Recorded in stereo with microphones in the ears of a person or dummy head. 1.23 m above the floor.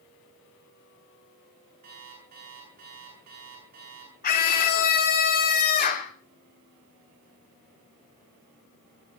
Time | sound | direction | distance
1.8 | an alarm clock | 40° right (ahead or behind) | 9.5 m
4.2 | a scream | 45° left (ahead or behind) | 3 m